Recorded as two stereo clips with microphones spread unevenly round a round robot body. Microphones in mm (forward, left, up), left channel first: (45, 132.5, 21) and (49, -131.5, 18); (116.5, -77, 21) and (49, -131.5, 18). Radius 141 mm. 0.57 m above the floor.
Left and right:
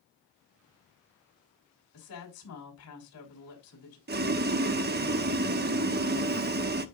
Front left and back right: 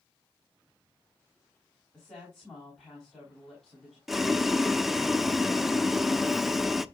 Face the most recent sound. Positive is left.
turn(degrees=-55)